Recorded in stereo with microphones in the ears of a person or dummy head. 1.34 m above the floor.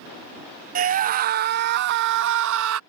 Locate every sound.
0.8 s a scream: 45° right (ahead or behind); by 2.8 s 80° right